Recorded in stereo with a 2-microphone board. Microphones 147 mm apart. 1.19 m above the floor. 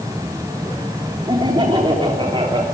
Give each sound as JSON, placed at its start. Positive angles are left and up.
{"t": 1.3, "sound": "laughter", "side_deg": -35, "distance_m": 3.0}